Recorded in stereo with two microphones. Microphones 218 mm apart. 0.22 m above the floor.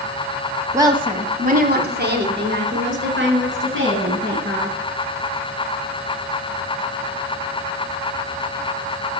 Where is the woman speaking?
15° right (ahead or behind), 1.0 m; by 4.8 s 70° right (ahead or behind), 3 m.